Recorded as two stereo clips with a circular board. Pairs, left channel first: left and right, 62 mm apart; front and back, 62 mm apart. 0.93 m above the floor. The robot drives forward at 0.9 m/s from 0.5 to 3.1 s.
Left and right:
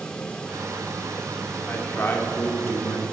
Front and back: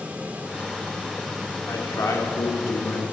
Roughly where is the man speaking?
Ahead left.